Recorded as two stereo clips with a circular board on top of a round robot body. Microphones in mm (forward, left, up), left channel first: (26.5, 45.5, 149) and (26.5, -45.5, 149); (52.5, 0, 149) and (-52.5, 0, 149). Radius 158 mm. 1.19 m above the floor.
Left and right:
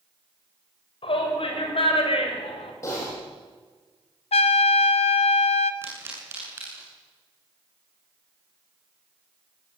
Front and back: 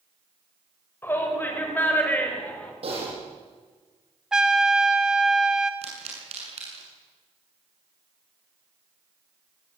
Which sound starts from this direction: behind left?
Typing on a keyboard, at 2.8 s.